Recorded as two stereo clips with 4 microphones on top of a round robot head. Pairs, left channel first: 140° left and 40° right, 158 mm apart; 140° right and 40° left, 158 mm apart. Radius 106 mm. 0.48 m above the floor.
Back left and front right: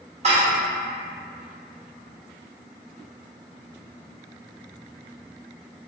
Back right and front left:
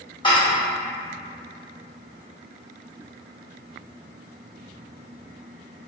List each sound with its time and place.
0.2 s dishes clattering: 85° right, 1.3 m